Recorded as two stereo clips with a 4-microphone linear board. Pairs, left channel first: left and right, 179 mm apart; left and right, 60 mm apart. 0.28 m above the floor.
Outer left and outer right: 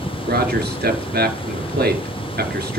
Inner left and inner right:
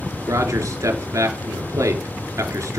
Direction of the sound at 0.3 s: 65° right (ahead or behind).